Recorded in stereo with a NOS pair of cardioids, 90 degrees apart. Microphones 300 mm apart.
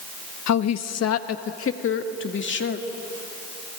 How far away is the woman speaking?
About 1.3 m.